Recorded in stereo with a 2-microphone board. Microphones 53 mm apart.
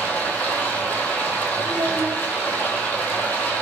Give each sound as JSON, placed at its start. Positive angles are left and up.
{"t": 0.0, "sound": "running water", "side_deg": 35, "distance_m": 1.0}
{"t": 1.6, "sound": "a child speaking", "side_deg": 25, "distance_m": 1.5}